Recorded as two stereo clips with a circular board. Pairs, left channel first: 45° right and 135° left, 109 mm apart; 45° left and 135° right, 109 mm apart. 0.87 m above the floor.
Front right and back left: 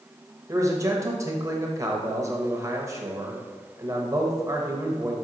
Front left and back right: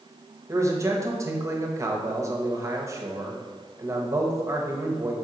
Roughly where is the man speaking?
Behind.